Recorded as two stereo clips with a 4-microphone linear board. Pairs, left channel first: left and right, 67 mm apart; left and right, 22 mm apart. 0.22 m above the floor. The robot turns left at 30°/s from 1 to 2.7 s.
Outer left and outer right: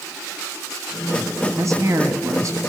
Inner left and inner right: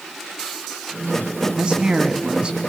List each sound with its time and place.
1.6 s a man speaking: 75° right, 1.9 m; by 2.6 s 105° right, 1.9 m